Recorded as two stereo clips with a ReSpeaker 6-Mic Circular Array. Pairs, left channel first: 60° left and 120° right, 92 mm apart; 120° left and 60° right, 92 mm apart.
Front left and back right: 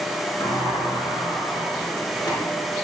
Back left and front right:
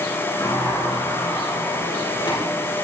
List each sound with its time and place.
0.4 s a sliding door: 100° left, 4.5 m